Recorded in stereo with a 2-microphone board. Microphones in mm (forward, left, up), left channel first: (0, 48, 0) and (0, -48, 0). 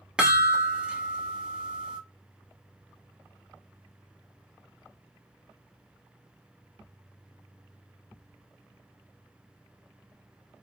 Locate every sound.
0.2 s a chime: 10° right (ahead or behind), 0.9 m